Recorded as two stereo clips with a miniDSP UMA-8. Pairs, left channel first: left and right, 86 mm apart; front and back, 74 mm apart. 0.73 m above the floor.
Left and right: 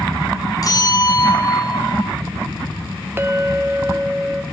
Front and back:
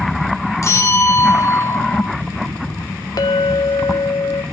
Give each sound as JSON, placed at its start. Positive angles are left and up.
{"t": 0.6, "sound": "a bell", "azimuth_deg": 45, "distance_m": 1.7}
{"t": 3.2, "sound": "a clink", "azimuth_deg": -25, "distance_m": 0.8}